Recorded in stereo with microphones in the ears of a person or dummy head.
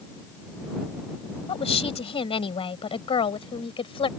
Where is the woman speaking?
30° left (ahead or behind).